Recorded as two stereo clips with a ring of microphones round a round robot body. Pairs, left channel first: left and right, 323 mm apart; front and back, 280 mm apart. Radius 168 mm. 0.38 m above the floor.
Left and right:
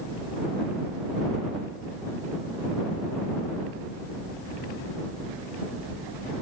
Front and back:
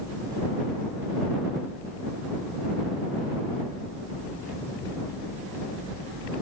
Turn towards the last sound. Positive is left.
No sound to turn to.